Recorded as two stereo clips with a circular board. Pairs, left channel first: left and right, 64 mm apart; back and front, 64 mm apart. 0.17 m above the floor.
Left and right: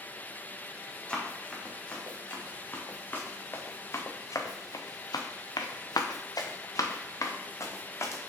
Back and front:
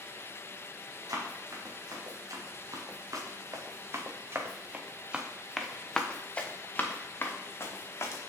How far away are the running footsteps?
About 2.5 m.